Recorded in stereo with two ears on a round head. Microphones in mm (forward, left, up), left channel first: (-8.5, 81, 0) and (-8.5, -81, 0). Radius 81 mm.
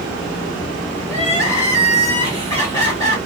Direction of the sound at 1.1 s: 20° left (ahead or behind).